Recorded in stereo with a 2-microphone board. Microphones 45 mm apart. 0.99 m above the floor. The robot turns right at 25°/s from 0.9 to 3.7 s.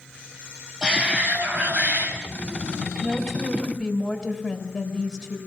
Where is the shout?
160° right, 5.5 m; by 2.1 s 130° right, 5.5 m.